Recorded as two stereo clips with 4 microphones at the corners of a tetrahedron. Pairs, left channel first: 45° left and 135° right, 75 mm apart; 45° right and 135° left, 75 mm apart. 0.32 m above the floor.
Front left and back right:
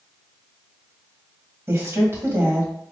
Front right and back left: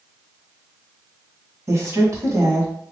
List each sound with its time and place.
1.7 s a woman speaking: 175° left, 2 m